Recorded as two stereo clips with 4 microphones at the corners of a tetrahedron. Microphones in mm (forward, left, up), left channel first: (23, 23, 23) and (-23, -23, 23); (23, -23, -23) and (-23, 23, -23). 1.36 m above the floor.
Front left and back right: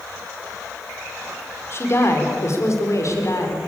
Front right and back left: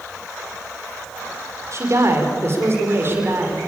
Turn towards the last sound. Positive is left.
turn(degrees=80)